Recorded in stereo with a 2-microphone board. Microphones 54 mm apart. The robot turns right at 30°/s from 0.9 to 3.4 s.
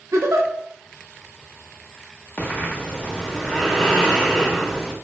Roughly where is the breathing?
Behind left.